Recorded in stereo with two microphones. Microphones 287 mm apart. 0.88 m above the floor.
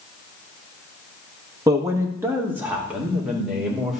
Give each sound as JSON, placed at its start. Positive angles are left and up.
{"t": 1.7, "sound": "a man speaking", "side_deg": -10, "distance_m": 1.2}